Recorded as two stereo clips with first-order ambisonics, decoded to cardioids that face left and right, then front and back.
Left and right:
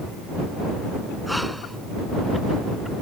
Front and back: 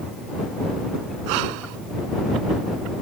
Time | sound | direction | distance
1.3 | breathing | straight behind | ?